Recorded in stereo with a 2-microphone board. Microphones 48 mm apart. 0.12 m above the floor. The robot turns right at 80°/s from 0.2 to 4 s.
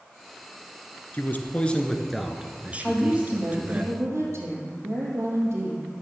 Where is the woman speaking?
170° right, 4 m; by 5.9 s 75° right, 4 m.